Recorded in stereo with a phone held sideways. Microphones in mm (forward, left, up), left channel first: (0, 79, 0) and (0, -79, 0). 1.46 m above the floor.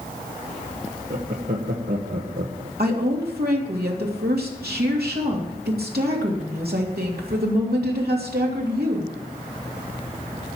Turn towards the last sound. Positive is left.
turn(degrees=-85)